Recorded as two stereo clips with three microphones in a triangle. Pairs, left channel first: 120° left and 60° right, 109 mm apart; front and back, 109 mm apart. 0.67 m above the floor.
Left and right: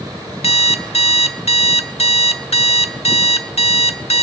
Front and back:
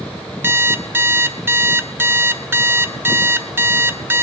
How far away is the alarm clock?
About 0.5 m.